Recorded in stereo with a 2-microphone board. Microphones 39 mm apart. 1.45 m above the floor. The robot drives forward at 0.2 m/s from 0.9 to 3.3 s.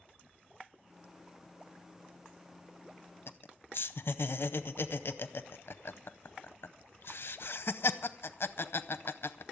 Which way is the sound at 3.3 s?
65° left (ahead or behind).